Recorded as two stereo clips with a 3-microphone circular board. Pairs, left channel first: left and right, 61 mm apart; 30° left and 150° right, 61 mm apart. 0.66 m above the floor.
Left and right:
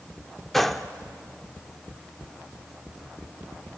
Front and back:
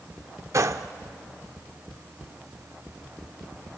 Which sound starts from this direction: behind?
A gunshot, at 0.5 s.